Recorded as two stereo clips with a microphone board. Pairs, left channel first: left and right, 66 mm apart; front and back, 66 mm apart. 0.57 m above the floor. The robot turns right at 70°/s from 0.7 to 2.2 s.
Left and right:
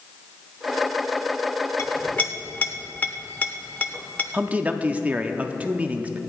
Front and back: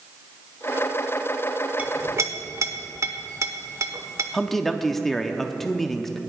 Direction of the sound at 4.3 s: 80° right.